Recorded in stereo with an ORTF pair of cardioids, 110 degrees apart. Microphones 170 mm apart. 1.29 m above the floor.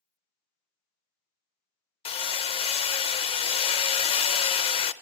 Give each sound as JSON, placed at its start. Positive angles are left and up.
{"t": 2.0, "sound": "hammering", "azimuth_deg": 35, "distance_m": 0.6}